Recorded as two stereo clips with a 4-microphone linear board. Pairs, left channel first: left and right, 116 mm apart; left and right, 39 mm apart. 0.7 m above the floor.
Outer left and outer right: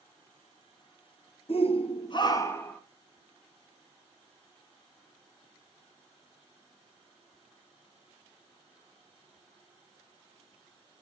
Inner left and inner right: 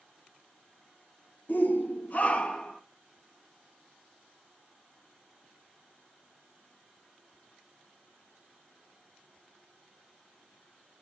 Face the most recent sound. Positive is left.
turn(degrees=15)  # may be behind; listen again after turning